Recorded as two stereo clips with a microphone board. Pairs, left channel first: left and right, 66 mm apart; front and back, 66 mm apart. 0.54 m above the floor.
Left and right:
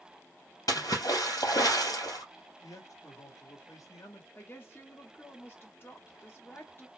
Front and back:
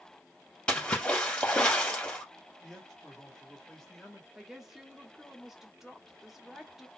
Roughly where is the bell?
I don't hear a bell.